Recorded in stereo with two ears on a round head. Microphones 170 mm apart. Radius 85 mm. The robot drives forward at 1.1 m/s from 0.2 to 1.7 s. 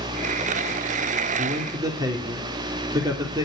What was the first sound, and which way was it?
A man speaking, 25° right (ahead or behind).